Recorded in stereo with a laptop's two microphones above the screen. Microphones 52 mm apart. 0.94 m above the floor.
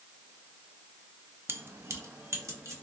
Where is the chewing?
No chewing in this recording.